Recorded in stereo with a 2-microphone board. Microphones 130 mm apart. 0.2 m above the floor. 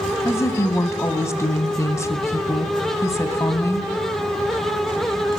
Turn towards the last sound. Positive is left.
turn(degrees=20)  # may be behind; listen again after turning